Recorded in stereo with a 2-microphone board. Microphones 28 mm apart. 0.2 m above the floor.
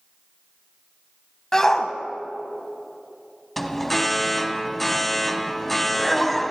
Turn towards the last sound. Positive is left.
turn(degrees=5)  # may be behind; listen again after turning